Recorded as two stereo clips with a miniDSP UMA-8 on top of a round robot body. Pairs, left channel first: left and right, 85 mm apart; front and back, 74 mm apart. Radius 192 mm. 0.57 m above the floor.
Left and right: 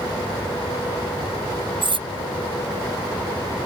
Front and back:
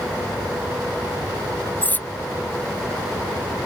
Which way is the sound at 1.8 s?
65° right.